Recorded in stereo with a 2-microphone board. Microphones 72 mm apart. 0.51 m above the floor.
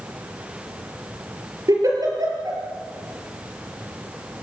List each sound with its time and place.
1.7 s a giggle: 55° right (ahead or behind), 5 m